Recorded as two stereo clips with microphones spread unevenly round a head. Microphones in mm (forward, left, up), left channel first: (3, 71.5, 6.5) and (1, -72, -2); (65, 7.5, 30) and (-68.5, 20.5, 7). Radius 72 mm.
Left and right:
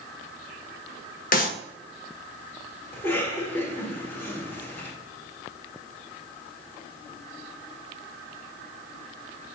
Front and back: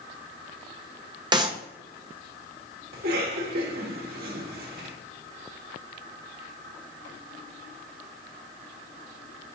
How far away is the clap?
About 1.0 m.